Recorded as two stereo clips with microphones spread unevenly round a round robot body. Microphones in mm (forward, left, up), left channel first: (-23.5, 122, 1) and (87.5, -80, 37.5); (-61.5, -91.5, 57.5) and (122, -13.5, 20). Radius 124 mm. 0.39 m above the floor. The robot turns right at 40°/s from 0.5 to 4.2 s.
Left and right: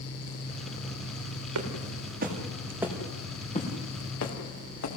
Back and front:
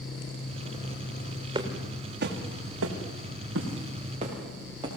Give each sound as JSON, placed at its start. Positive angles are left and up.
{"t": 1.6, "sound": "footsteps", "azimuth_deg": -45, "distance_m": 4.5}